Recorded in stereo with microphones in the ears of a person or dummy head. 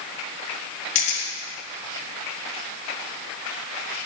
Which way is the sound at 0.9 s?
45° left (ahead or behind).